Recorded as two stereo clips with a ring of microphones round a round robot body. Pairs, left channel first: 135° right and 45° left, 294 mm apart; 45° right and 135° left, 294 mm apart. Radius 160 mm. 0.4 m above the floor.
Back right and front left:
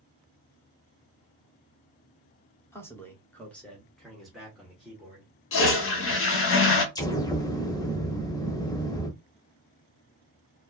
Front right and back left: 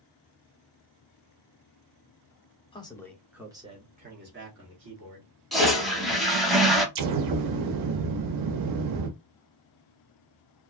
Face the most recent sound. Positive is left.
turn(degrees=145)